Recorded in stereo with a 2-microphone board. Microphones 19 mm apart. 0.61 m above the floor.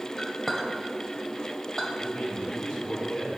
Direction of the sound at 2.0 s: 70° left (ahead or behind).